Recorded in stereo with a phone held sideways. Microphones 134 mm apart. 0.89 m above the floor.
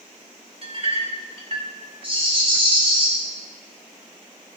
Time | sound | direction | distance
0.6 | a clink | 45° right (ahead or behind) | 2.5 m
2.0 | a rattle | 40° right (ahead or behind) | 5.5 m